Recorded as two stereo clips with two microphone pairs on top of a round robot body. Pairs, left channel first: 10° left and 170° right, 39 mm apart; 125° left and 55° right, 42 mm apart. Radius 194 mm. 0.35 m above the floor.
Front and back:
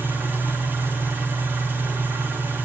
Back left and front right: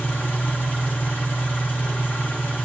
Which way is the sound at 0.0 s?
165° left.